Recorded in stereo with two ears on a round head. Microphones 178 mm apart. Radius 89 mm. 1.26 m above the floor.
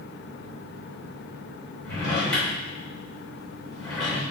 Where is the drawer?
5° left (ahead or behind), 2.0 m.